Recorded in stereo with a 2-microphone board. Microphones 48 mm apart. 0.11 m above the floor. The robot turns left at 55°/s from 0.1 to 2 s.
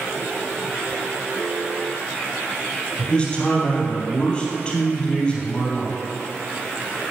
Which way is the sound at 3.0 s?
20° left (ahead or behind).